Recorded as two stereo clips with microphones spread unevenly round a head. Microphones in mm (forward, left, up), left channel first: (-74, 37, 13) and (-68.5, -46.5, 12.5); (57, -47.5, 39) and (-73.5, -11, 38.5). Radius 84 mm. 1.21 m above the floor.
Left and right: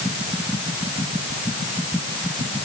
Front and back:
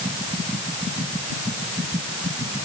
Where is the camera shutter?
I don't hear a camera shutter.